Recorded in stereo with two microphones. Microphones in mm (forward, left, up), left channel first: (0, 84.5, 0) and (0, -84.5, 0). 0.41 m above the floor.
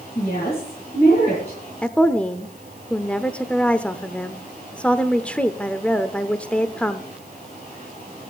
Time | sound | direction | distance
0.1 | a woman speaking | 40° left (ahead or behind) | 7.5 m
1.8 | a woman speaking | 5° left (ahead or behind) | 0.7 m